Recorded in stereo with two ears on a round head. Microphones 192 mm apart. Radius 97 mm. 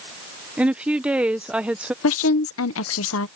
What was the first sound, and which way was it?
A woman speaking, 5° right (ahead or behind).